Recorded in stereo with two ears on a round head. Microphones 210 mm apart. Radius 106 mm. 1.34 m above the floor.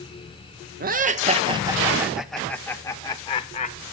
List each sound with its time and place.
0.8 s laughter: 40° right (ahead or behind), 1.3 m; by 3.8 s 25° left (ahead or behind), 1.9 m